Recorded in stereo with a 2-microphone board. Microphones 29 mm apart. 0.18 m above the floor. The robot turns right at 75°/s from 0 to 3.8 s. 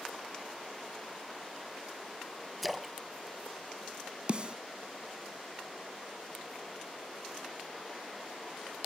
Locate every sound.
2.6 s a splash: centre (ahead or behind), 0.8 m; by 2.9 s 10° right (ahead or behind), 0.8 m
4.3 s a snare drum: 35° right (ahead or behind), 0.6 m